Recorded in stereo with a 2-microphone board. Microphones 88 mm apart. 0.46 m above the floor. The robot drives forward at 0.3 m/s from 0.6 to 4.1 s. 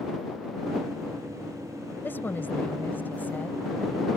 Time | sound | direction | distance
2.0 | a woman speaking | 25° left (ahead or behind) | ?